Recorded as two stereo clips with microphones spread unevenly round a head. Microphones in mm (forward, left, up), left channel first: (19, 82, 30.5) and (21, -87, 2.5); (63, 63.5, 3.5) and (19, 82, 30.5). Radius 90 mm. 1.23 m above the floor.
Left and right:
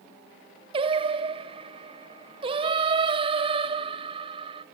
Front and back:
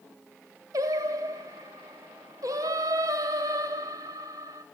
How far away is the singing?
About 0.7 m.